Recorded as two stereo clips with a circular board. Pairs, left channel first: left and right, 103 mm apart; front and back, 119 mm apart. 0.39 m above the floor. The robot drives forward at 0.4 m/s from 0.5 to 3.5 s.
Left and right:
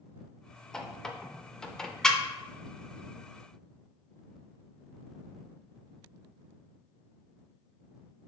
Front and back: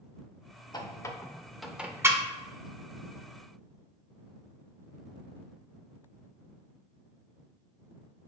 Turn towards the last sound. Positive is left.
turn(degrees=175)